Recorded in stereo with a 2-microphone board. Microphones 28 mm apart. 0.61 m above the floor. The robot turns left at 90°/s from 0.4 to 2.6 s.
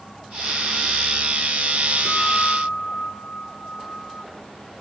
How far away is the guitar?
About 8 m.